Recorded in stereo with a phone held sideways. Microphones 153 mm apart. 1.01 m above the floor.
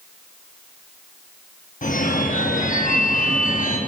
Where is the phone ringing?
60° left (ahead or behind), 0.8 m.